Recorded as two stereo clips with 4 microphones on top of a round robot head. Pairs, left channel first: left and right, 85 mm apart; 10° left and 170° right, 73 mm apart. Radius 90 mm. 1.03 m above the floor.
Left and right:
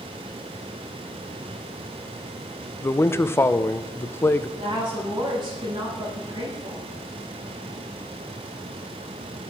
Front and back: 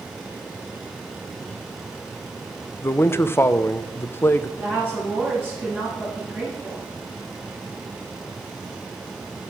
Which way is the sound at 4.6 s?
55° right.